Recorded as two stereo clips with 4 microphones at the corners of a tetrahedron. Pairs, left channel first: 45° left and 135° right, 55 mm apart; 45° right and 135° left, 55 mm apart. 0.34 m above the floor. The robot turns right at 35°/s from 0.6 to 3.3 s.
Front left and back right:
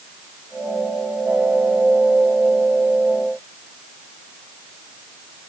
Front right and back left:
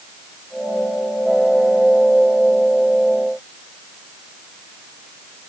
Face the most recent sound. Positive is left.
No sound to turn to.